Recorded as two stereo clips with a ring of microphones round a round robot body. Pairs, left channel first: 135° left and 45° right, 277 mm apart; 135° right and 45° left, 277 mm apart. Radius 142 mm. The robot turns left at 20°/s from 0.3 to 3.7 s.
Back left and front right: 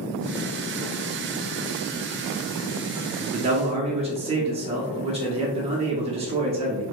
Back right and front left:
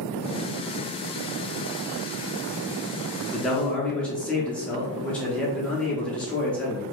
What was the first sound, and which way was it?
A man speaking, 50° right.